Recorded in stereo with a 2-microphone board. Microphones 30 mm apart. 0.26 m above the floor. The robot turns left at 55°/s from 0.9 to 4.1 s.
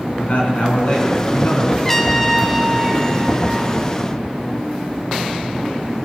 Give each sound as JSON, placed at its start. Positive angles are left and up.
{"t": 0.2, "sound": "a man speaking", "azimuth_deg": 125, "distance_m": 3.5}
{"t": 1.8, "sound": "a trumpet", "side_deg": 15, "distance_m": 0.7}